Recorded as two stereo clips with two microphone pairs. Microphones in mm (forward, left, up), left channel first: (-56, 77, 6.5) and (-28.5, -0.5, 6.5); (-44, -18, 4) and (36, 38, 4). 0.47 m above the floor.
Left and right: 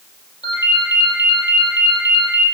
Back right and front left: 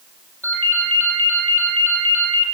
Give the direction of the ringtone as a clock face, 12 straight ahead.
7 o'clock.